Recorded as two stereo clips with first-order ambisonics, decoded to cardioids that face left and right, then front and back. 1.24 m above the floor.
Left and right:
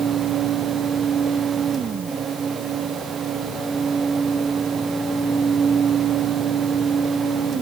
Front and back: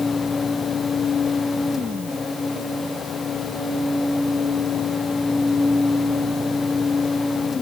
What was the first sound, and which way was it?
Only background noise.